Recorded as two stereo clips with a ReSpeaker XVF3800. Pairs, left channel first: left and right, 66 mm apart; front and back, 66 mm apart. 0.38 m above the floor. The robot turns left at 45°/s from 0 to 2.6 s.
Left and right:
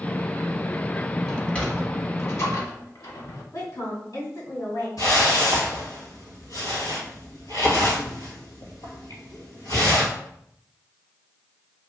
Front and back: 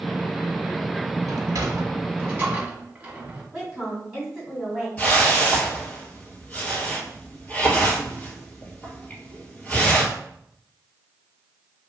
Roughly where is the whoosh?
Left.